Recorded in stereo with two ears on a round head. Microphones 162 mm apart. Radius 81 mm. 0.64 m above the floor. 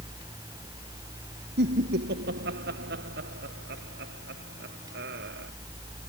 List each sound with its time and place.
1.6 s laughter: 65° right (ahead or behind)